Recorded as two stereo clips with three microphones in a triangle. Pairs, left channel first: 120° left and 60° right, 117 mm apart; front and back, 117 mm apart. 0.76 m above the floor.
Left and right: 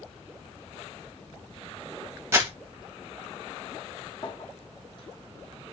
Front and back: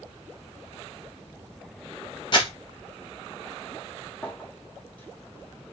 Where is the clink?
75° left, 0.9 m.